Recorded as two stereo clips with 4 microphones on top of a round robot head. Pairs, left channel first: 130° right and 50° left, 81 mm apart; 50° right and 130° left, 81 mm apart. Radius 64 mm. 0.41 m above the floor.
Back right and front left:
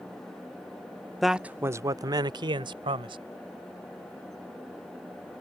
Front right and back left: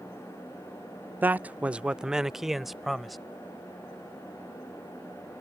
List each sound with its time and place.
1.2 s a man speaking: 140° left; by 3.2 s 40° left